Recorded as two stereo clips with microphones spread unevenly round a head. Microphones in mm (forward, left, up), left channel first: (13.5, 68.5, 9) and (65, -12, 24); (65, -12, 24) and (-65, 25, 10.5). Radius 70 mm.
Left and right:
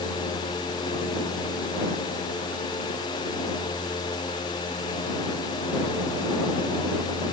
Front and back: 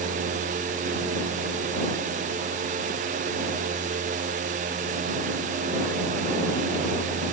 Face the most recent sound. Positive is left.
No sound to turn to.